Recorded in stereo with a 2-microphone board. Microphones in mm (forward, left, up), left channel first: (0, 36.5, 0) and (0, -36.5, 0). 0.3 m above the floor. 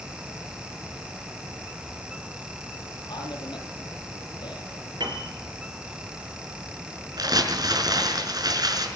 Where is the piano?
80° right, 4 m.